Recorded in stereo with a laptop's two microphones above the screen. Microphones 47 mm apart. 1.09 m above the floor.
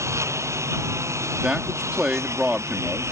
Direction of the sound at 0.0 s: 80° right.